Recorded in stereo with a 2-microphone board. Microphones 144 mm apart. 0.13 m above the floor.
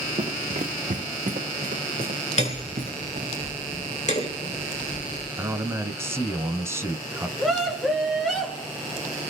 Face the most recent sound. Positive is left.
turn(degrees=0)  # may be behind; listen again after turning